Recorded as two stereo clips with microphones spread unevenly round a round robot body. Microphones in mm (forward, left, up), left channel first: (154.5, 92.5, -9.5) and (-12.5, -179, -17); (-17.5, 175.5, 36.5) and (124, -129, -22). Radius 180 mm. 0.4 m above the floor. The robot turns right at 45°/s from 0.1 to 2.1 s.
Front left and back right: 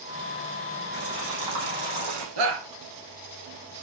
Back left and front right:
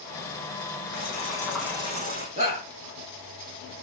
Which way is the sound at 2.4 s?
135° right.